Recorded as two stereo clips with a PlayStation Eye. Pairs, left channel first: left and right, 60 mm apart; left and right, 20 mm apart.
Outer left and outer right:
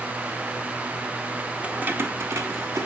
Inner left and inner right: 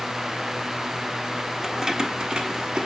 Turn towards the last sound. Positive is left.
turn(degrees=-65)  # may be behind; listen again after turning